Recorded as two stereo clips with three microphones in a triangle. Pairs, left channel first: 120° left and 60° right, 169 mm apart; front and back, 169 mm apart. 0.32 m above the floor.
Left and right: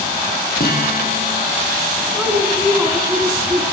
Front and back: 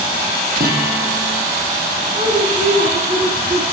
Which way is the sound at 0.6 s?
150° left.